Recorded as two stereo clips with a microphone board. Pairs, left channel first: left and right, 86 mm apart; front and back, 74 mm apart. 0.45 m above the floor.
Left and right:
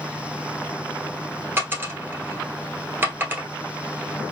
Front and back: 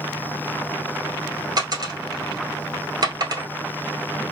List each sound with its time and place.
1.6 s a dropped coin: 155° right, 1.1 m